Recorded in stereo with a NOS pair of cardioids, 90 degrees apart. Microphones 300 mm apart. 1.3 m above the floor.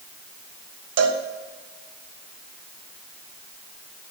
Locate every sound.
1.0 s a cowbell: 55° right, 1.5 m